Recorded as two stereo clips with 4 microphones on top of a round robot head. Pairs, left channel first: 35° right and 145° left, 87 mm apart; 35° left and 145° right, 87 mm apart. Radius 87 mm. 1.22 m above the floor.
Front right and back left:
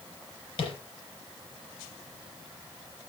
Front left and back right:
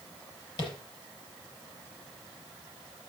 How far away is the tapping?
About 5 m.